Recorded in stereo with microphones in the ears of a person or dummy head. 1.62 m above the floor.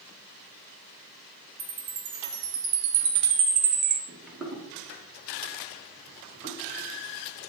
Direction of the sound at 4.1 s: 5° left (ahead or behind).